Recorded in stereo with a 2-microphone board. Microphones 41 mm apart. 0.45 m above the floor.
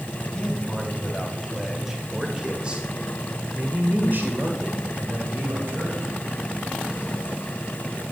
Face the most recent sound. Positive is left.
turn(degrees=-55)  # may be behind; listen again after turning